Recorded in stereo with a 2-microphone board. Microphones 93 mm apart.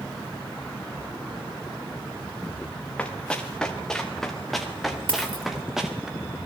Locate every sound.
3.0 s running footsteps: 10° left (ahead or behind), 5 m; by 6.1 s 5° right (ahead or behind), 5 m
5.1 s a dropped coin: 55° right (ahead or behind), 3.5 m